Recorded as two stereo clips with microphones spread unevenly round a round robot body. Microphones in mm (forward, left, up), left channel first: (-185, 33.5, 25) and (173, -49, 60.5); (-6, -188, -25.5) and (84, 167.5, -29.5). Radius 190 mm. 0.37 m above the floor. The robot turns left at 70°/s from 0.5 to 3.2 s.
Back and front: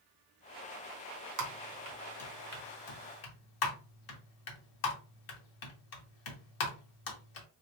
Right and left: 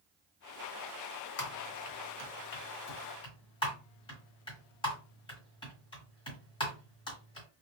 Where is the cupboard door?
No cupboard door in this recording.